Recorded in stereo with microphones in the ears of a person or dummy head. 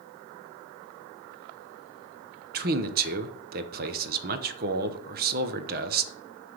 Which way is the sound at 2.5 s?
50° right (ahead or behind).